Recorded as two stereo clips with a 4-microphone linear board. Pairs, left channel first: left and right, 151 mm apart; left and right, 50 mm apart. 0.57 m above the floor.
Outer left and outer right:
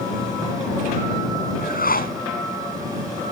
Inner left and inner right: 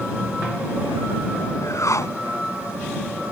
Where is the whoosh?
80° left.